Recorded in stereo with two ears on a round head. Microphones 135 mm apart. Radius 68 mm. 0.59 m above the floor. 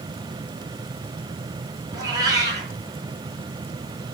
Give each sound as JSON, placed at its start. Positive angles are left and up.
{"t": 1.9, "sound": "a cat meowing", "side_deg": -25, "distance_m": 3.5}